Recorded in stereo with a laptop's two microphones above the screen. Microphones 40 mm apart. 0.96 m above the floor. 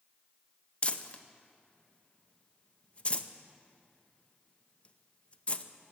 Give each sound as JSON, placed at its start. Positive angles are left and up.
{"t": 0.8, "sound": "crumpling", "side_deg": 30, "distance_m": 0.7}